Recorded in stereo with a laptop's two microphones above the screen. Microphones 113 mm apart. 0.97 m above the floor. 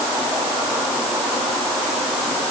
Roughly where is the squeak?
No squeak in this recording.